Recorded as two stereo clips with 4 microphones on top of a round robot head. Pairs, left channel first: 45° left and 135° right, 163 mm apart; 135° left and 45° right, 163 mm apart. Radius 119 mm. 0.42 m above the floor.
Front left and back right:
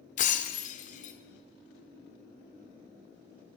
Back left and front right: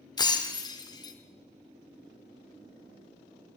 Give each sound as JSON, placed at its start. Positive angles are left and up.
{"t": 0.2, "sound": "breaking glass", "azimuth_deg": 75, "distance_m": 0.6}